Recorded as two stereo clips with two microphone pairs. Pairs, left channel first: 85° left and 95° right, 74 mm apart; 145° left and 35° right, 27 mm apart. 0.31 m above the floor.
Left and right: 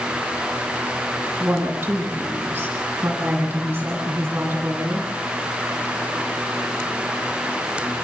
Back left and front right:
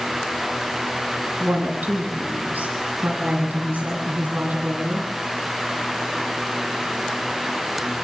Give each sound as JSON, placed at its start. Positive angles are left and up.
{"t": 1.4, "sound": "a woman speaking", "azimuth_deg": -30, "distance_m": 9.5}